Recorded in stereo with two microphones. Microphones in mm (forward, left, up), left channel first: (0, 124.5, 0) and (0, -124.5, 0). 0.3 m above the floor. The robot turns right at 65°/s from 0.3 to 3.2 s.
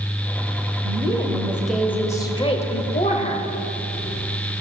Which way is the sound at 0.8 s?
25° right (ahead or behind).